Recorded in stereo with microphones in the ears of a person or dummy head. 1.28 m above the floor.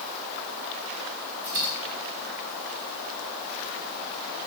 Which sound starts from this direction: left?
A dropped coin, at 1.4 s.